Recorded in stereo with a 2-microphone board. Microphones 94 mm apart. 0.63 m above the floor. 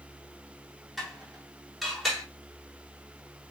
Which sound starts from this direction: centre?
Dishes clattering, at 1.0 s.